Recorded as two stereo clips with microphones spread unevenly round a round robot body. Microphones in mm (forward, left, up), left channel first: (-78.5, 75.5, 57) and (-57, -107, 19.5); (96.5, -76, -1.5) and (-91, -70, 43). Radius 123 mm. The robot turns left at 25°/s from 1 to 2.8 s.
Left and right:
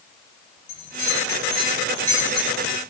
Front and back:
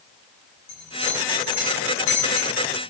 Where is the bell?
40° left, 5 m; by 2.6 s straight ahead, 5 m.